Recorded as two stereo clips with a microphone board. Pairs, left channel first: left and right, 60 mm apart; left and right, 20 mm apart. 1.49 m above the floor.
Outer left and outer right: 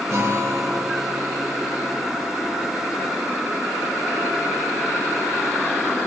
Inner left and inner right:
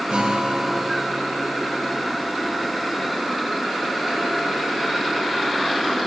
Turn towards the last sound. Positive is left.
turn(degrees=-60)  # may be behind; listen again after turning